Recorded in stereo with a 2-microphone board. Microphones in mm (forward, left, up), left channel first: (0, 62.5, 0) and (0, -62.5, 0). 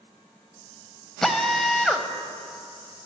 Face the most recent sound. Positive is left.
turn(degrees=5)  # may be behind; listen again after turning